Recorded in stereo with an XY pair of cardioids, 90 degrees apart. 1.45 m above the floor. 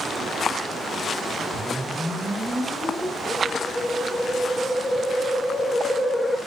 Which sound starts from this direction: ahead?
A whoosh, at 1.5 s.